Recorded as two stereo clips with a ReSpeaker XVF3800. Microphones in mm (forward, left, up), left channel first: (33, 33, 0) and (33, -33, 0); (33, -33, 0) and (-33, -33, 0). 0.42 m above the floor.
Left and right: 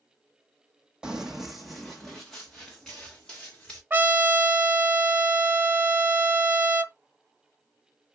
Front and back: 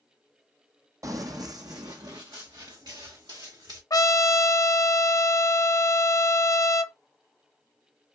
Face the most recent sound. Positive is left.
turn(degrees=-30)